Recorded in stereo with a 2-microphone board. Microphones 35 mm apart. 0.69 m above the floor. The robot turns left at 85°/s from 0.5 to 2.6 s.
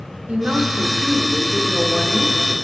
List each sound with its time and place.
0.3 s a woman speaking: 70° right, 1.4 m; by 2.5 s 115° left, 1.4 m